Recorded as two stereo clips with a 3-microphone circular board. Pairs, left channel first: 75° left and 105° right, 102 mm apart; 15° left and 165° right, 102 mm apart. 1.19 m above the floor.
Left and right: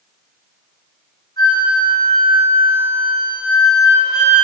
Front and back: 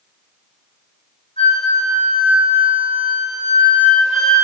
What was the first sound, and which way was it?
A flute, 35° left.